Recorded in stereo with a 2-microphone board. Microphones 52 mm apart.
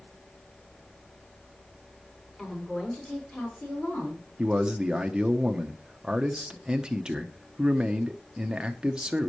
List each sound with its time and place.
2.4 s a woman speaking: 15° left (ahead or behind), 5 m; by 4.2 s 35° left (ahead or behind), 5.5 m
4.4 s a man speaking: 15° right (ahead or behind), 1.1 m